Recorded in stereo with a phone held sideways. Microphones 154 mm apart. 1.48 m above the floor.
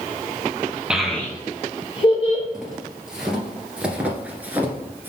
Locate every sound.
0.9 s a child speaking: 5° right (ahead or behind), 0.7 m; by 2.4 s 45° left (ahead or behind), 1.3 m
2.5 s footsteps: 5° right (ahead or behind), 2 m; by 5.1 s 15° right (ahead or behind), 1.4 m